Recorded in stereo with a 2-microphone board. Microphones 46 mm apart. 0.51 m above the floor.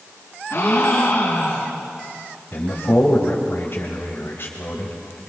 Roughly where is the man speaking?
Left.